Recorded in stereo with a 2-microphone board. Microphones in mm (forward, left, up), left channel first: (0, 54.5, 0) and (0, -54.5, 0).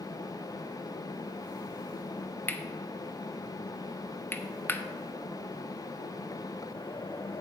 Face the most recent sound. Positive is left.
turn(degrees=20)  # may be behind; listen again after turning